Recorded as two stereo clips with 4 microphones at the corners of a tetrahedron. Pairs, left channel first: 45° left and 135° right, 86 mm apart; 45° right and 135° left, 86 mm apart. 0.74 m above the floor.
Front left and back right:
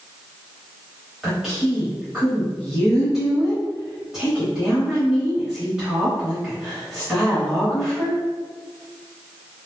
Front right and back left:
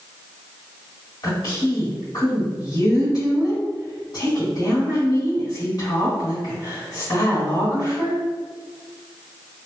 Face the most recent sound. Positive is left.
turn(degrees=-55)